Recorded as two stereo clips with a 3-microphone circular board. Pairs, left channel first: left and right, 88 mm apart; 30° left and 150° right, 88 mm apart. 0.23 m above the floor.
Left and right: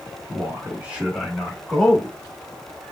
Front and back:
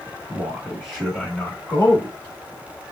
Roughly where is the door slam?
I don't hear a door slam.